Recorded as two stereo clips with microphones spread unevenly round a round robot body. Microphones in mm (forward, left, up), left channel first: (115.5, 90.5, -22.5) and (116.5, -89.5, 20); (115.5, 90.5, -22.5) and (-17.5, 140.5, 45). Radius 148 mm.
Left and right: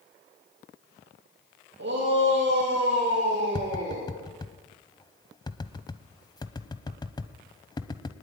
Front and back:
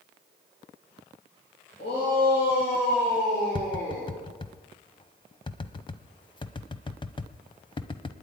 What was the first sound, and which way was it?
A shout, 80° right.